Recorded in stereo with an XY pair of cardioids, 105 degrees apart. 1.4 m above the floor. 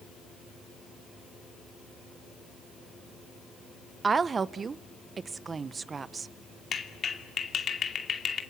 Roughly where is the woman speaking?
Ahead right.